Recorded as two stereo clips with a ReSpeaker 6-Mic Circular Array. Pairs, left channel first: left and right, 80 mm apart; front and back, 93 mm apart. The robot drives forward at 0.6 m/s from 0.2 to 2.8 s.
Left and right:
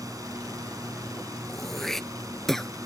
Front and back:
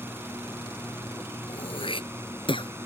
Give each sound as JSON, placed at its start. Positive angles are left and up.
{"t": 0.0, "sound": "a drone", "azimuth_deg": -120}
{"t": 1.5, "sound": "throat clearing", "azimuth_deg": 5}